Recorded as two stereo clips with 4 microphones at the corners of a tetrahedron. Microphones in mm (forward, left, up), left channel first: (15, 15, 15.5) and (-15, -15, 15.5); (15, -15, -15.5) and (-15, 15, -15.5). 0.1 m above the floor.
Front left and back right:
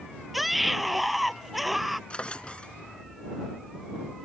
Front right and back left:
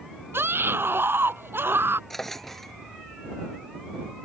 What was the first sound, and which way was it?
A scream, 135° left.